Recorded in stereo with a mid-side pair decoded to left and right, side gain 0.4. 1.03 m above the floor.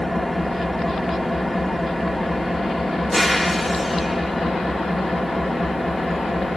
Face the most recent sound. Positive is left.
turn(degrees=5)